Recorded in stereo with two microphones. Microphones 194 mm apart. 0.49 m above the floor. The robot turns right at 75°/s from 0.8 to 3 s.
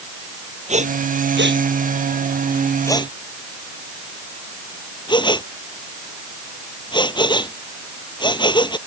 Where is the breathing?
40° right (ahead or behind); by 8.8 s 25° left (ahead or behind).